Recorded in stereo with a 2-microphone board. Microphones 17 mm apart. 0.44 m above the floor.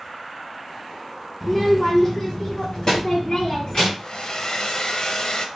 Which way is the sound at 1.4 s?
Centre (ahead or behind).